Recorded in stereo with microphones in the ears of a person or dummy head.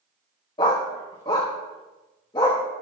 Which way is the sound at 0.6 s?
20° left (ahead or behind).